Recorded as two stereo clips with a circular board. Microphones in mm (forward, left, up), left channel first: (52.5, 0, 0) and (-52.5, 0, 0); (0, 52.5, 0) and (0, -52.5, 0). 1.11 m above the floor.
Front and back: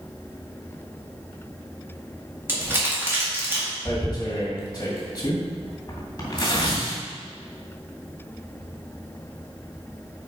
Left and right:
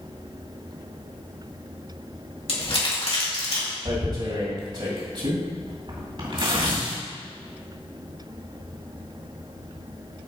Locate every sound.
2.5 s crumpling: 110° left, 2.5 m
3.9 s tearing paper: 55° right, 2 m